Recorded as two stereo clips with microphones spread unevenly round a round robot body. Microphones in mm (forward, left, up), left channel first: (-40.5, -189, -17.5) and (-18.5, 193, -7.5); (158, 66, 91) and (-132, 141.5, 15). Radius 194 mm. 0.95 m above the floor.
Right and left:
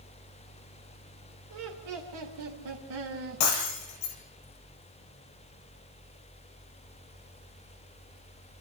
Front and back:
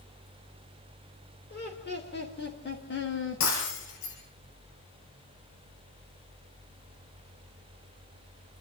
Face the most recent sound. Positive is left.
turn(degrees=-65)